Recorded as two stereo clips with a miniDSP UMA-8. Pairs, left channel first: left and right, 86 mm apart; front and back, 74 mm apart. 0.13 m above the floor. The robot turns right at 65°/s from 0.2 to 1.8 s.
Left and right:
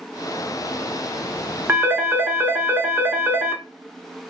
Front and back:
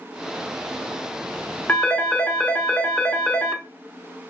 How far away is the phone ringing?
About 0.7 m.